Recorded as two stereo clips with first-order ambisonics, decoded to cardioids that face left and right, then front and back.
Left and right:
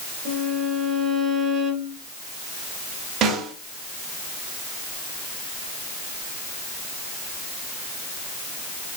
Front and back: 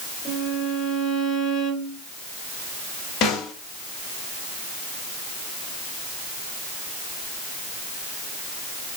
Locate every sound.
0.2 s a violin: 45° right, 2.5 m
3.2 s a snare drum: 45° right, 1.6 m